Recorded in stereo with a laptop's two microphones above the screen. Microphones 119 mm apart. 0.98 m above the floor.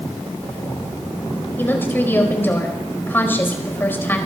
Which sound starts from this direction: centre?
A woman speaking, at 1.6 s.